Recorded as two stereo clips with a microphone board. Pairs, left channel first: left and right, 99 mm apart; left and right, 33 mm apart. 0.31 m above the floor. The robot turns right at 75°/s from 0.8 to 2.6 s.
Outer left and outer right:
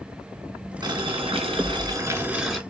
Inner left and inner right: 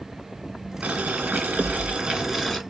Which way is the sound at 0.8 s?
130° right.